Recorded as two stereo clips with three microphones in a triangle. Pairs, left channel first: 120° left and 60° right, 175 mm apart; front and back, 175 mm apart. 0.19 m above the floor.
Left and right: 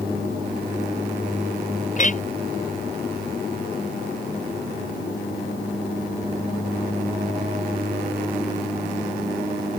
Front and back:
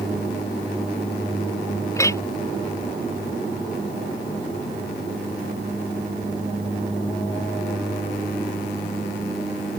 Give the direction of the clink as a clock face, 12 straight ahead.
10 o'clock.